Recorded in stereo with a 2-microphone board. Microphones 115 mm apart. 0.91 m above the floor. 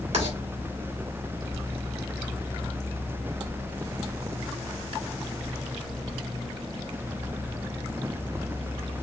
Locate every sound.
0.1 s writing: 75° right (ahead or behind), 2 m